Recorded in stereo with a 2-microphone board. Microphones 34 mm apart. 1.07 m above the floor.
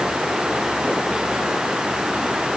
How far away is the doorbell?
I don't hear a doorbell.